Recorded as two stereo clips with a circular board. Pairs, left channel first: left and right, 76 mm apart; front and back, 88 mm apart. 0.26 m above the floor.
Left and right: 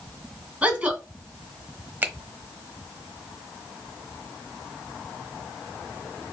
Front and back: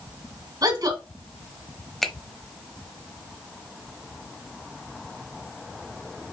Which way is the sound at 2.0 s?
80° right.